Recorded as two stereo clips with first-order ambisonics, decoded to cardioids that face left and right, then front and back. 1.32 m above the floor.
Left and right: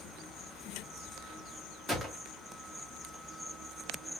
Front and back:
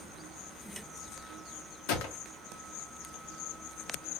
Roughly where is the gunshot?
Ahead.